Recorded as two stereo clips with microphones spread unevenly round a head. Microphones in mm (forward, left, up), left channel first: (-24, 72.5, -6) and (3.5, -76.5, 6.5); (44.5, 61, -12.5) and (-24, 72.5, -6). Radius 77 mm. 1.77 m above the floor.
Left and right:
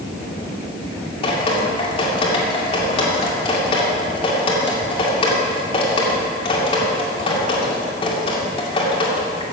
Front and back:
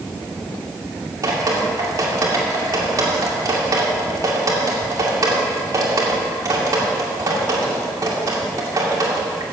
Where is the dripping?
155° left, 2 m.